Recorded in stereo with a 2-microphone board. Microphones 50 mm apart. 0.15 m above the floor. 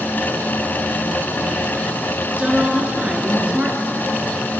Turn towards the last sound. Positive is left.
turn(degrees=-20)  # may be behind; listen again after turning